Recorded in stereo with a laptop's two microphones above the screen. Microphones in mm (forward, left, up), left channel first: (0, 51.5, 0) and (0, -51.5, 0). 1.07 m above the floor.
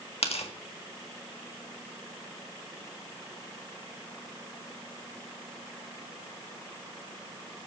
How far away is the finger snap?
I don't hear a finger snap.